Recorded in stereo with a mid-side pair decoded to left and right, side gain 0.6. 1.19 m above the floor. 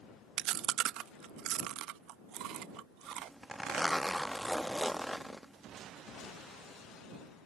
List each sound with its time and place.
0.4 s chewing: 65° right
3.0 s a zipper: 5° right